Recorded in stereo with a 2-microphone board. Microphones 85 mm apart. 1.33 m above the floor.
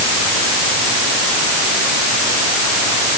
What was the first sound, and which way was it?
Only background noise.